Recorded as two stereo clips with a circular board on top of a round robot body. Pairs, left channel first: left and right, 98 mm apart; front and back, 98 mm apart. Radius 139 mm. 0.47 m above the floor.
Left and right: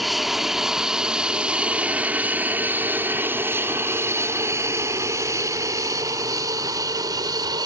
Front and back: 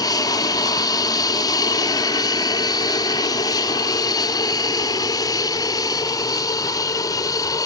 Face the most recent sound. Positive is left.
turn(degrees=-50)